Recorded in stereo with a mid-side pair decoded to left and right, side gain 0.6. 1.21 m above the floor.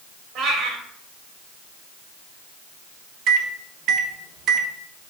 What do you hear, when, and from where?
0.3 s a cat meowing: 60° right, 3 m
3.3 s a microwave: 60° right, 1.1 m